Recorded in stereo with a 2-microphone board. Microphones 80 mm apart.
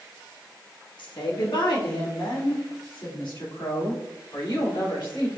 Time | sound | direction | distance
1.0 | a woman speaking | 75° left (ahead or behind) | 1.2 m